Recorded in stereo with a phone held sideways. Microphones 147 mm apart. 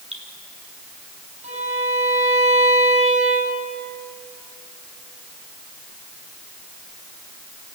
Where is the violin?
55° right (ahead or behind), 8.5 m.